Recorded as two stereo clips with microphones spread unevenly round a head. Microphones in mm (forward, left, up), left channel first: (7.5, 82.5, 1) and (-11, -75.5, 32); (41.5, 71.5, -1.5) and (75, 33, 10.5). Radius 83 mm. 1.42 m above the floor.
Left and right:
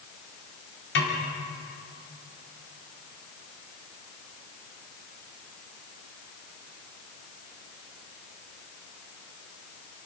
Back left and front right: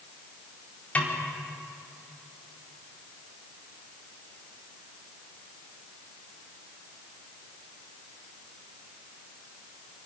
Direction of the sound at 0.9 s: 65° left.